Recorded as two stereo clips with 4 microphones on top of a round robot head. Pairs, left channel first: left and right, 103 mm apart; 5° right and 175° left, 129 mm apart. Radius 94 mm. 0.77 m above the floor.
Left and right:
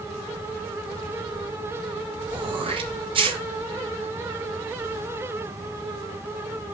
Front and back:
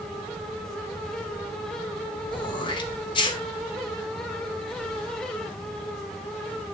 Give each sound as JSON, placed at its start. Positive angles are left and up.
{"t": 2.3, "sound": "throat clearing", "azimuth_deg": -55, "distance_m": 1.4}